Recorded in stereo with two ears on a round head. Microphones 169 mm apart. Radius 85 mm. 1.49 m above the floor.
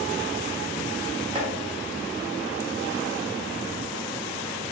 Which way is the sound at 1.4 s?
30° right (ahead or behind).